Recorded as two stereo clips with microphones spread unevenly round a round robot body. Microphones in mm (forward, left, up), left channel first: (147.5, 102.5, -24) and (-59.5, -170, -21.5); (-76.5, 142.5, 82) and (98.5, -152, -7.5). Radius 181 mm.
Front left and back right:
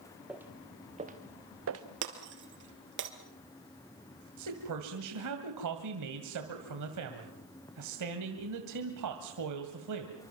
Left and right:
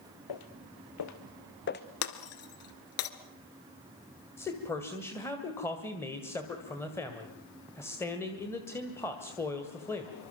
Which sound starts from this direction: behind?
Breaking glass, at 2.0 s.